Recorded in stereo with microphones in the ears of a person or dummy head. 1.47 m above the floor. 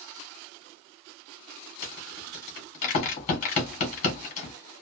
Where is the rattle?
45° left (ahead or behind), 1.4 m.